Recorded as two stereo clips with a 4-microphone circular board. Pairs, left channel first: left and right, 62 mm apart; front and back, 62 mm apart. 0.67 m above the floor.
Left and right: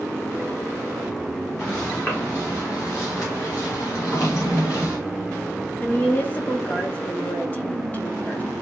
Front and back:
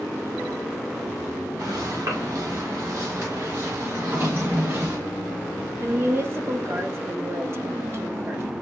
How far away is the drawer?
About 3.5 m.